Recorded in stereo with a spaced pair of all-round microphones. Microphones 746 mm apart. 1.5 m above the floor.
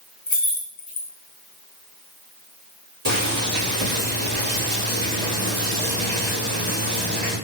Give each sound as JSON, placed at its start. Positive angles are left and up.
{"t": 0.3, "sound": "keys jangling", "side_deg": 45, "distance_m": 0.8}
{"t": 3.0, "sound": "boiling", "side_deg": -55, "distance_m": 1.5}